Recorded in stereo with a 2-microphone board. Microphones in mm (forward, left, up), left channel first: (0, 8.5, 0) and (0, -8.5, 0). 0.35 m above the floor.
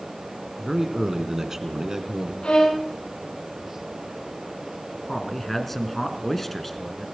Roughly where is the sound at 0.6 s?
Centre.